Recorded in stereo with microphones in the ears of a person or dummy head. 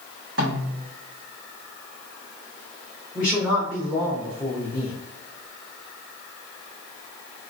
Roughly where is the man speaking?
Centre.